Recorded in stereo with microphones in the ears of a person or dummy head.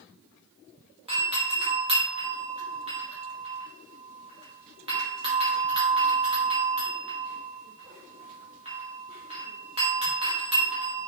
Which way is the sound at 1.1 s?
25° right (ahead or behind).